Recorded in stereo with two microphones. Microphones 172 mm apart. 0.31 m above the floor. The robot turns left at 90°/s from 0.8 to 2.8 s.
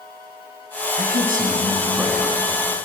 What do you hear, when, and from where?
1.0 s a man speaking: 80° right, 2.5 m; by 2.4 s 155° left, 2.5 m